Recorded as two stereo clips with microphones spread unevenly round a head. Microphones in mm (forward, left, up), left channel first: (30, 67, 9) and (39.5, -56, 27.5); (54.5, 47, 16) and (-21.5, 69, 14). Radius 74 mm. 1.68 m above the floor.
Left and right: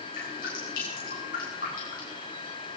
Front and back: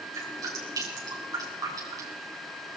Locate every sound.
0.1 s dripping: 125° left, 8.5 m